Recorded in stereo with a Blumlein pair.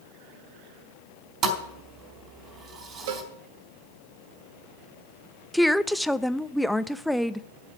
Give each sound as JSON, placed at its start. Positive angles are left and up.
{"t": 1.4, "sound": "a thud", "azimuth_deg": -30, "distance_m": 3.5}
{"t": 3.1, "sound": "a cowbell", "azimuth_deg": -50, "distance_m": 1.2}
{"t": 5.5, "sound": "a woman speaking", "azimuth_deg": 0, "distance_m": 0.5}